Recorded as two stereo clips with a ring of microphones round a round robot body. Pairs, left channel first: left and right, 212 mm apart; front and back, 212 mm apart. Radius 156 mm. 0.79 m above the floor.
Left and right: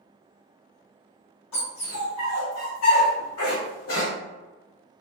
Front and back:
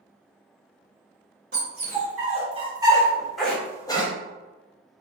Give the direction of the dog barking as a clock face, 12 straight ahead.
7 o'clock.